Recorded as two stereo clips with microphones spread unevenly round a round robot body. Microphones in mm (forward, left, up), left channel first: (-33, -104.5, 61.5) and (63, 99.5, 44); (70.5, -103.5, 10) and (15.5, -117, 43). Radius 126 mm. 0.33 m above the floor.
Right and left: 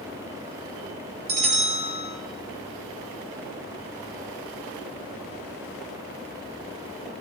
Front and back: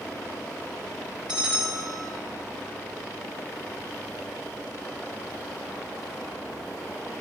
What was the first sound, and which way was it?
A bell, 125° left.